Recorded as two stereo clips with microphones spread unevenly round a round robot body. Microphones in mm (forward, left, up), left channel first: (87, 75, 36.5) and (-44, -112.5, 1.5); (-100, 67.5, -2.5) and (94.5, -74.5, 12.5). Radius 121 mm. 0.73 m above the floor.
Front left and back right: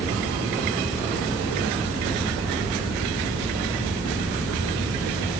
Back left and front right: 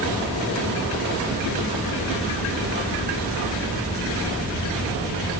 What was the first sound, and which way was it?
Only background noise.